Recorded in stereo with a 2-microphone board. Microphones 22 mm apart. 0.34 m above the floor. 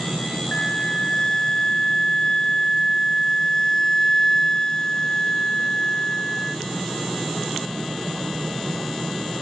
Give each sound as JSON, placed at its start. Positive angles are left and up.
{"t": 0.5, "sound": "a flute", "side_deg": 40, "distance_m": 0.9}